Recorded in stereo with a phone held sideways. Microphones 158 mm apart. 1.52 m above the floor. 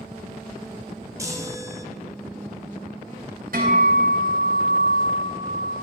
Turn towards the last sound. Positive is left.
turn(degrees=-70)  # may be behind; listen again after turning